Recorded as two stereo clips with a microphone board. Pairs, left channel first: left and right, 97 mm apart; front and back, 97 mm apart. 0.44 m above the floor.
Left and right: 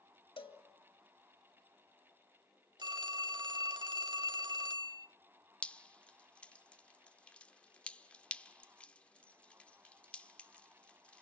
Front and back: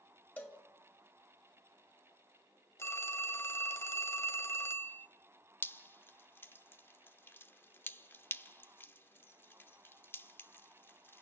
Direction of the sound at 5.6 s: 30° left.